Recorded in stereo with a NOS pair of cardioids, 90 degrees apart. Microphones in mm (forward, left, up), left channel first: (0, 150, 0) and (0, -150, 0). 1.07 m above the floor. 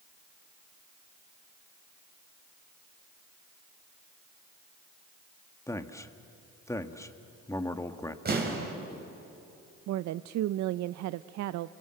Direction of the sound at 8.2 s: 35° right.